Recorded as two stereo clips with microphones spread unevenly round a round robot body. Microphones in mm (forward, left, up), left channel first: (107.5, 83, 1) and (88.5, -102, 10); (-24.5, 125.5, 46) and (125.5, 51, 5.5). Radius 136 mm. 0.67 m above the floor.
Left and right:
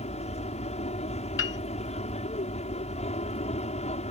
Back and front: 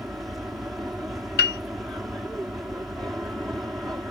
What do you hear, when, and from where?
0.0 s an aircraft: 50° left
1.4 s a piano: 135° left